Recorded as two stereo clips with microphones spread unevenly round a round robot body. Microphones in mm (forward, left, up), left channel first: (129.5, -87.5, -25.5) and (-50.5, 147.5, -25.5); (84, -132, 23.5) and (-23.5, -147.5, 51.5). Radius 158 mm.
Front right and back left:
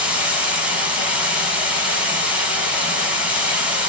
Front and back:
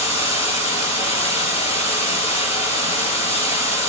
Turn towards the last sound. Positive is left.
turn(degrees=40)